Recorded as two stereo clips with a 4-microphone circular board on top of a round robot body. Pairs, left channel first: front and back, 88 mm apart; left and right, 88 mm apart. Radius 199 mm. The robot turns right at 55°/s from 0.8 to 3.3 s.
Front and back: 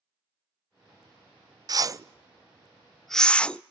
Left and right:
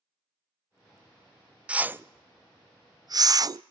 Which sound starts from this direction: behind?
A whoosh, at 1.7 s.